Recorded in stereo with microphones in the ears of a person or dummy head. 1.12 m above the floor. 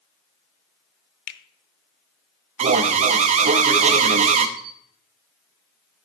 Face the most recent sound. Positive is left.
turn(degrees=-65)  # may be behind; listen again after turning